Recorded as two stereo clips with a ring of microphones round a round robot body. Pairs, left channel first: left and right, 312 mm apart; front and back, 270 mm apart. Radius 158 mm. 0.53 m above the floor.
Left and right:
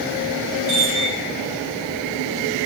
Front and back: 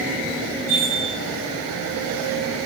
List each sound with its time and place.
0.7 s a chime: 40° right, 4 m